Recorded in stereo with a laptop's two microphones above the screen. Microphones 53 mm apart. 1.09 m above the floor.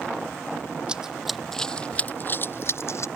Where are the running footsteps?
15° right (ahead or behind); by 3.1 s 60° left (ahead or behind).